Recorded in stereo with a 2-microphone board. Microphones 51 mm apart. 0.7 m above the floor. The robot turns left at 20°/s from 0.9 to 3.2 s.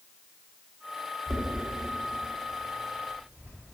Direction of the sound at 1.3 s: 65° right (ahead or behind).